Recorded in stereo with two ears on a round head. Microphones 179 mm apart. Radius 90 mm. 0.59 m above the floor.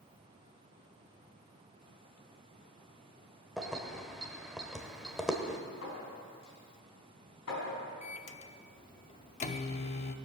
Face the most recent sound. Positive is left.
turn(degrees=35)  # may be behind; listen again after turning